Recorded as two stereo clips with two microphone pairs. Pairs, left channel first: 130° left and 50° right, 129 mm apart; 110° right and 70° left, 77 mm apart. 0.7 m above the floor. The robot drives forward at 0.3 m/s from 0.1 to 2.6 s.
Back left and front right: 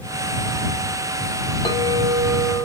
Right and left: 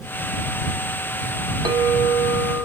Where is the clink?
75° left, 0.6 m; by 2.6 s 105° left, 0.6 m.